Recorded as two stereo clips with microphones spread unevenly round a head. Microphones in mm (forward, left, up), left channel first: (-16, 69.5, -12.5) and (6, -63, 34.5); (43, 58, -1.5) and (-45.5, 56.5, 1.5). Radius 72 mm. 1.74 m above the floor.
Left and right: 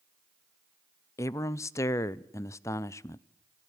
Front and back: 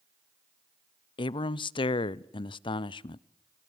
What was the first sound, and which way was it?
A man speaking, 20° left.